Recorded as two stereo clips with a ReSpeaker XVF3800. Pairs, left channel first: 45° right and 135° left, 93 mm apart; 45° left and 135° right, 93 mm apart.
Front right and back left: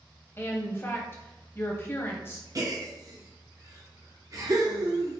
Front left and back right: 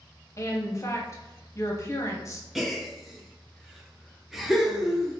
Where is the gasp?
140° left, 0.7 m.